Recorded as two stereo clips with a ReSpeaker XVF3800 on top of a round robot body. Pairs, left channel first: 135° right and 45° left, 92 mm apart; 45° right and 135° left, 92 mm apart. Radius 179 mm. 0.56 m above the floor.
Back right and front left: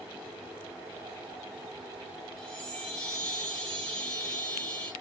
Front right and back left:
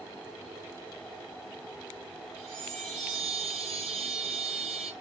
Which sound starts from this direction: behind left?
A chime, at 2.4 s.